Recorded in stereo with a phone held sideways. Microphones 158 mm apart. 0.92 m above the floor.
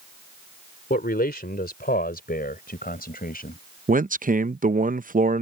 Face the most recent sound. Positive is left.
turn(degrees=-60)  # may be behind; listen again after turning